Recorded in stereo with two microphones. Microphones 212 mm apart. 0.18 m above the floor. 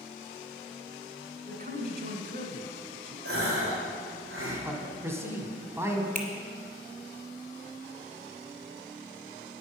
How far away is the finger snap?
About 1.4 m.